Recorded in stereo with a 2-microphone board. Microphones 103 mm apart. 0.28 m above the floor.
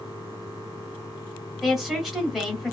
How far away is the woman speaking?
About 1.5 m.